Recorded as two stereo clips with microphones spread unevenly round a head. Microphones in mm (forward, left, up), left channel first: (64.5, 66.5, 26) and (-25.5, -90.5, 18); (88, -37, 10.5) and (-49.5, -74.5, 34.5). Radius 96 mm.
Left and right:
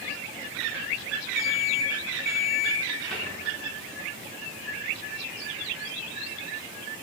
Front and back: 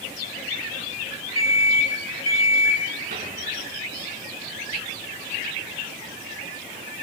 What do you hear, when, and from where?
1.4 s an alarm clock: 30° right, 3 m
3.1 s a cupboard door: 150° left, 5 m